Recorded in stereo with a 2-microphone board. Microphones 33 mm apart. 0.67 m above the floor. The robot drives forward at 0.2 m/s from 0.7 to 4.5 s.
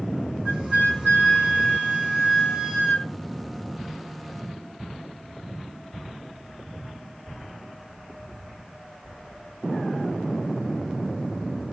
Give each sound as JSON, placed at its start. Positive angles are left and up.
{"t": 0.5, "sound": "a flute", "side_deg": -30, "distance_m": 2.5}